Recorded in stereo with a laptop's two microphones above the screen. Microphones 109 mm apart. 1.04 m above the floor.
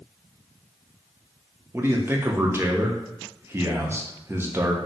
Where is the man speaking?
25° right (ahead or behind), 0.7 m.